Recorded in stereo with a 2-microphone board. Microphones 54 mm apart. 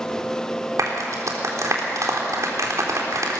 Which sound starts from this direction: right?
A clap, at 0.8 s.